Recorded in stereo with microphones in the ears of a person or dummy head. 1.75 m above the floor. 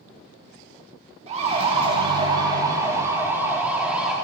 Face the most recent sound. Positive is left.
turn(degrees=-5)  # may be behind; listen again after turning